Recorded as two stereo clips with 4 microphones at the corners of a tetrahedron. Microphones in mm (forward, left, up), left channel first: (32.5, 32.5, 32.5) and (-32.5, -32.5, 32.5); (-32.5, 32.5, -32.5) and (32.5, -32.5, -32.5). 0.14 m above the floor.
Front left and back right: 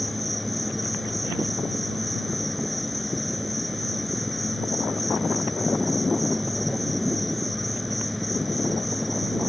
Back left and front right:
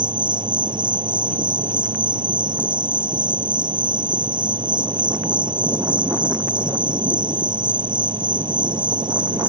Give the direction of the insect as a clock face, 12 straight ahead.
1 o'clock.